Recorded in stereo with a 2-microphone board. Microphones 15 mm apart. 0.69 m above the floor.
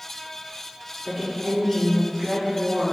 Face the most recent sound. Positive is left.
turn(degrees=-45)  # may be behind; listen again after turning